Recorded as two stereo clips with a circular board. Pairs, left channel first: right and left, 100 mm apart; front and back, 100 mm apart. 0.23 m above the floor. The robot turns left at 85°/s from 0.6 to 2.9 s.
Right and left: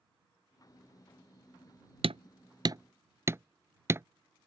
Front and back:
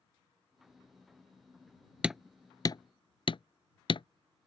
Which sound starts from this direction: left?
Hammering, at 2.0 s.